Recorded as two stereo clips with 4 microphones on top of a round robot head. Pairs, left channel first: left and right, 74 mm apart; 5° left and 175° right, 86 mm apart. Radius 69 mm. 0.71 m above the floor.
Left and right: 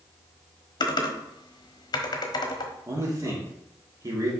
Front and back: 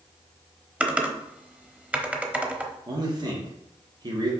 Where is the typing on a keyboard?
115° left, 1.1 m.